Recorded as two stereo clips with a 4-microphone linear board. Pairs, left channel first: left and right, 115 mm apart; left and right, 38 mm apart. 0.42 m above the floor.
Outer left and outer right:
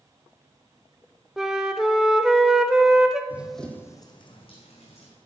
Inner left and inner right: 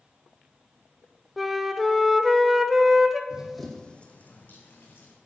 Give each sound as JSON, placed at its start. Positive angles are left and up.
{"t": 1.4, "sound": "a flute", "side_deg": -5, "distance_m": 0.6}
{"t": 3.3, "sound": "running footsteps", "side_deg": -15, "distance_m": 1.1}